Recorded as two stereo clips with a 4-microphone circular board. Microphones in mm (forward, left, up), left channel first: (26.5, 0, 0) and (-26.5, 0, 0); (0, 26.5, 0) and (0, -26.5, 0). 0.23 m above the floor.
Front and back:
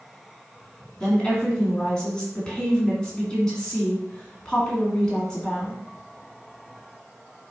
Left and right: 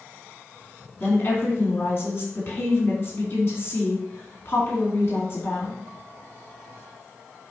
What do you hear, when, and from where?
1.0 s a woman speaking: 70° left, 2.5 m